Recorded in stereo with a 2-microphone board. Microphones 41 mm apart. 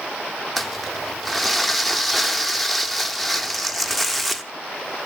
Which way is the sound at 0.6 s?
Centre (ahead or behind).